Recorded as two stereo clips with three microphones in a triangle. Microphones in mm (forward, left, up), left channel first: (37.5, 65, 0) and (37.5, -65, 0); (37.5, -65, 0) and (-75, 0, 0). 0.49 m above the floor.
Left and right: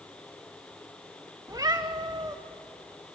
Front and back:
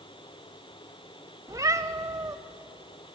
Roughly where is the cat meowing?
Behind right.